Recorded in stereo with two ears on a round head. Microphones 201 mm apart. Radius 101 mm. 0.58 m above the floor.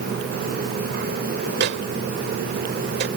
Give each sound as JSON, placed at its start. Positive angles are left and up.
{"t": 1.6, "sound": "a microwave", "side_deg": -50}